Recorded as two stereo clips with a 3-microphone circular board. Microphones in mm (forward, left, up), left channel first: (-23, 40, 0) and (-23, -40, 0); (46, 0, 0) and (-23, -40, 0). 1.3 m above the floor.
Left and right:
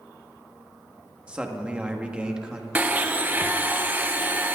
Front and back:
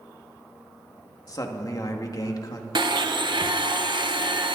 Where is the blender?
160° right, 0.9 m.